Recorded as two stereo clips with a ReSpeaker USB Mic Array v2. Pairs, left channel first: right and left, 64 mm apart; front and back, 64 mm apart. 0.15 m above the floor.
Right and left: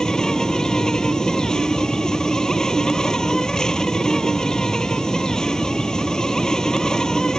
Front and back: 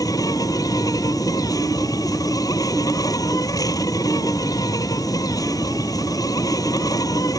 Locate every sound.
0.0 s an insect: 10° right